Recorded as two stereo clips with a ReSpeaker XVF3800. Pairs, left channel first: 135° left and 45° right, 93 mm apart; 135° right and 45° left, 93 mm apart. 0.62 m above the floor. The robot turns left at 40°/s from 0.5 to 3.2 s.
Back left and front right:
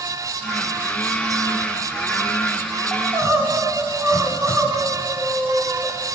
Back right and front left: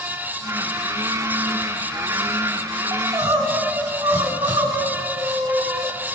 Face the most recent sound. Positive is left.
turn(degrees=10)